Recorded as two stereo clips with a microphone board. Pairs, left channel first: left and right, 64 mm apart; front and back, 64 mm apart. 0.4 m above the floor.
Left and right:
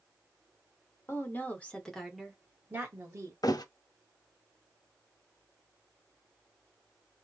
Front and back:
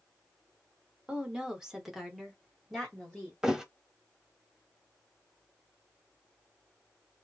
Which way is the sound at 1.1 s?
110° left.